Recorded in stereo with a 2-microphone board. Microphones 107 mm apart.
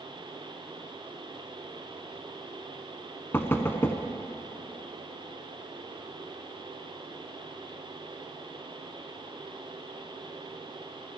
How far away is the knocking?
About 0.8 m.